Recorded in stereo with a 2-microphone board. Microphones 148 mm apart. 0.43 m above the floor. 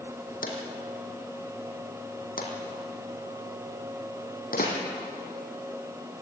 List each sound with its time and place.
0.4 s a drawer: 75° left (ahead or behind), 4.5 m